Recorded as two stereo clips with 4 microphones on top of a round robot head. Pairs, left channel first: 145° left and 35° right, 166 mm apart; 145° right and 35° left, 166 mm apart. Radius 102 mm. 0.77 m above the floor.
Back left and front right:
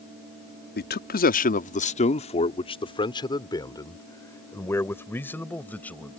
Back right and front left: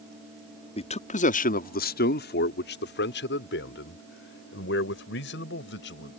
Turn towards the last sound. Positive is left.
turn(degrees=-130)